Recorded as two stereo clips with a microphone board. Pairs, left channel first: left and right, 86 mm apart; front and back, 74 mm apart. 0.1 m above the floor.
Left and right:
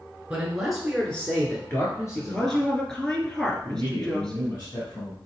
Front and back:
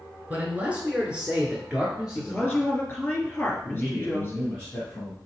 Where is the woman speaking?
20° left, 1.7 m.